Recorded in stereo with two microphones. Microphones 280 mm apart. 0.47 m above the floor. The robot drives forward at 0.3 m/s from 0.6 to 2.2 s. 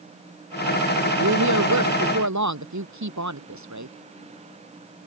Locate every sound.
1.2 s a woman speaking: 85° right; by 4.0 s 80° right